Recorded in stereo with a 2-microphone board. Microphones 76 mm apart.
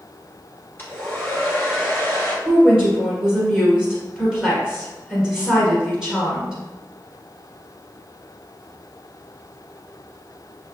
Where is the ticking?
I don't hear ticking.